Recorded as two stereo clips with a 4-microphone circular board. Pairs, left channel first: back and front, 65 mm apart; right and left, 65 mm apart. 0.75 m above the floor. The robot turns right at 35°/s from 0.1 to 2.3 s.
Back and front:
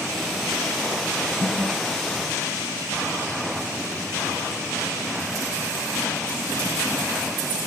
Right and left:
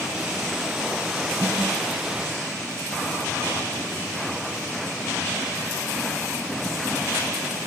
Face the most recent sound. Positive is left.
turn(degrees=15)